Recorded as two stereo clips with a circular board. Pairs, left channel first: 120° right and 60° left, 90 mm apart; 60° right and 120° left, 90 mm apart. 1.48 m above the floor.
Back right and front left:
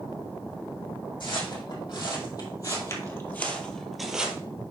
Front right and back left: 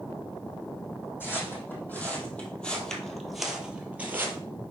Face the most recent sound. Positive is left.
turn(degrees=125)